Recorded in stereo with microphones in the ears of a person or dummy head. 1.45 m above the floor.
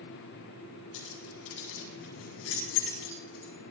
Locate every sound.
0.9 s keys jangling: 80° left, 6.5 m; by 3.5 s 85° left, 7.5 m